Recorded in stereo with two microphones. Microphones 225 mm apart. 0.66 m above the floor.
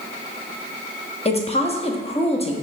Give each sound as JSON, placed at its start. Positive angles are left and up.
{"t": 1.2, "sound": "a woman speaking", "side_deg": 25, "distance_m": 0.6}